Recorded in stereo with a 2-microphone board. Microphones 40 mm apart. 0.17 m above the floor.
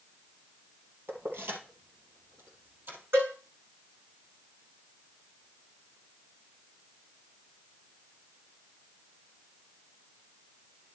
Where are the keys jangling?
75° right (ahead or behind), 2.5 m; by 3.0 s 55° right (ahead or behind), 3 m.